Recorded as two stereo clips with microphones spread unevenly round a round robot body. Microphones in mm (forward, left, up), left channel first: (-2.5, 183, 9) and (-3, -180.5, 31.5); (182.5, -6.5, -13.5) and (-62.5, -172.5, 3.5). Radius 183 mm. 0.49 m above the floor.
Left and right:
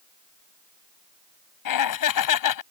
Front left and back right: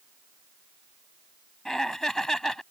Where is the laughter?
125° left.